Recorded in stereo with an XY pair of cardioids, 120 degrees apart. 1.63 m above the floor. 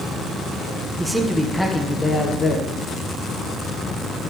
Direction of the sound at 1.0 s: 10° right.